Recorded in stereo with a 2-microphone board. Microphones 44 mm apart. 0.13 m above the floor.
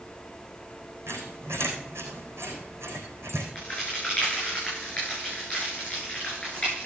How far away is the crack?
About 9.5 m.